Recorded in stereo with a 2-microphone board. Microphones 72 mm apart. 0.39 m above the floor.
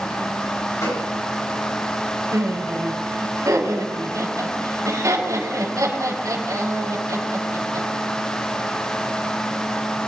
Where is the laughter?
50° right (ahead or behind), 5.5 m.